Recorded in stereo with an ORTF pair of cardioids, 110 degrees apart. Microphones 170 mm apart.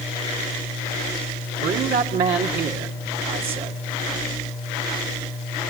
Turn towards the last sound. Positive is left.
turn(degrees=-70)